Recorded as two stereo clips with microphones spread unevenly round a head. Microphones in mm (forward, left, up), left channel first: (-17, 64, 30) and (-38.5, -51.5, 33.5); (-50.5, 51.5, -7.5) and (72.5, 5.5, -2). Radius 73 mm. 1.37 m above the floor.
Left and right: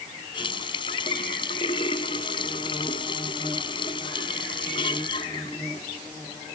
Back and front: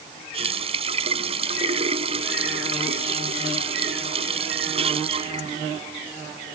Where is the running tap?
20° left.